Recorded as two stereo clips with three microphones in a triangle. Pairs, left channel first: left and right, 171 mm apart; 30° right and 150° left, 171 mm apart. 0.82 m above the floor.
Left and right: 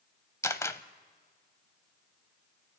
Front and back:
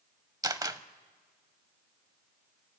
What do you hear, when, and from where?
0.4 s a camera shutter: 130° left, 0.6 m